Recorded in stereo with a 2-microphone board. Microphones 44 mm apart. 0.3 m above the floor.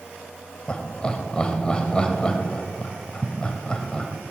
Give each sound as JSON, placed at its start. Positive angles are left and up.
{"t": 0.7, "sound": "laughter", "side_deg": 20, "distance_m": 1.3}